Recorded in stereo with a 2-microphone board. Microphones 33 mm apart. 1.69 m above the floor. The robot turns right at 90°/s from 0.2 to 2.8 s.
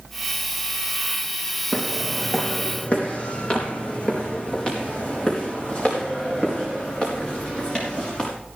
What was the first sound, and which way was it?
Footsteps, 40° right (ahead or behind).